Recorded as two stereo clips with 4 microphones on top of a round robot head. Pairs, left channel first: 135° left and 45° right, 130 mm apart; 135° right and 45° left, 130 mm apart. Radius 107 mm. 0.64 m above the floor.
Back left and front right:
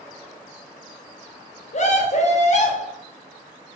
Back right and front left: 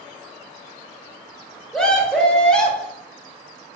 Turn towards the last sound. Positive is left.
turn(degrees=140)